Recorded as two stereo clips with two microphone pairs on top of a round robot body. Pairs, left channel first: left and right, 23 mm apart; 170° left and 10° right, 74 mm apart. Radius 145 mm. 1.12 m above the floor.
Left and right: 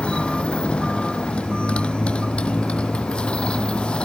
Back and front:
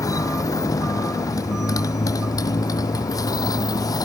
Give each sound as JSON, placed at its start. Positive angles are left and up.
{"t": 0.0, "sound": "a motorcycle", "azimuth_deg": 125}